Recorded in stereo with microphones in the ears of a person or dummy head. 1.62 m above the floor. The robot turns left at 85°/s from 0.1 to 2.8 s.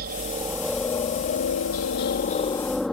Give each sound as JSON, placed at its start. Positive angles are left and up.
{"t": 0.0, "sound": "a helicopter", "azimuth_deg": -125}